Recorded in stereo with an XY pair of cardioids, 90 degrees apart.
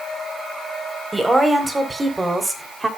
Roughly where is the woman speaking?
Ahead.